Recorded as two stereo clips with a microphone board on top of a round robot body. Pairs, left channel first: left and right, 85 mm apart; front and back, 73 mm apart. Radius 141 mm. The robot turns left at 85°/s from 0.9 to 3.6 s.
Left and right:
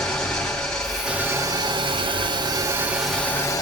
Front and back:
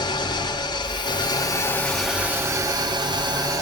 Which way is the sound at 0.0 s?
5° left.